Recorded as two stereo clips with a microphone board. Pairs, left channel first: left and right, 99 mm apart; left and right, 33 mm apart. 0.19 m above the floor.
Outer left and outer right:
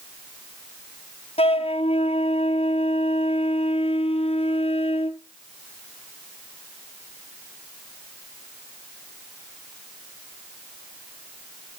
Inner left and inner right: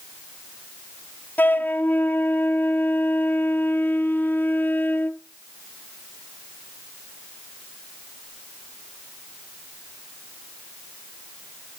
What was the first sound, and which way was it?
A flute, 80° left.